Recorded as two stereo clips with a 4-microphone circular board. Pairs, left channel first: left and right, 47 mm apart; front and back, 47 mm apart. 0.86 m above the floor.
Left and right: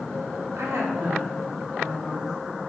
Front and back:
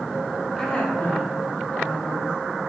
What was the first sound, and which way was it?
A woman speaking, 85° right.